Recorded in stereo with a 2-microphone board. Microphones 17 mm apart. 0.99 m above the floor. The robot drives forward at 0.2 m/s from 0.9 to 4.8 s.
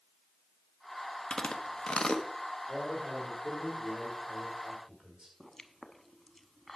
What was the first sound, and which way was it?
Chewing, 50° left (ahead or behind).